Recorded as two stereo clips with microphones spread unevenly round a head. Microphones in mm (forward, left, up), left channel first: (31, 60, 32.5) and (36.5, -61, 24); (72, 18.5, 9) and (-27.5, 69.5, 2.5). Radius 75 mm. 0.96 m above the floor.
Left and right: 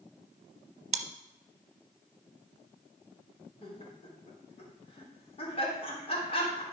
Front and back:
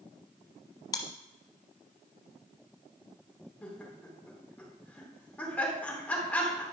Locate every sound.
0.9 s chewing: 90° right, 0.8 m
3.6 s laughter: 50° left, 3.5 m